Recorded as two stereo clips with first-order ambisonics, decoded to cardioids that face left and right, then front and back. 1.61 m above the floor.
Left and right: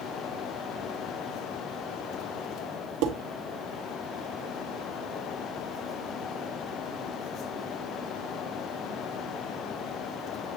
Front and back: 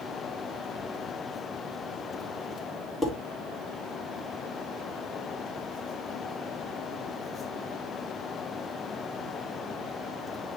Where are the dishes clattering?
80° right, 2 m.